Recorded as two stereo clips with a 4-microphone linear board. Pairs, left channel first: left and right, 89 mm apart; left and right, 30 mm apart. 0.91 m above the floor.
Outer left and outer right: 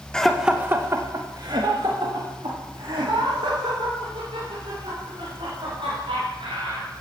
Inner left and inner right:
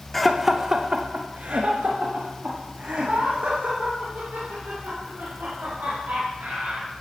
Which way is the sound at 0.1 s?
10° left (ahead or behind).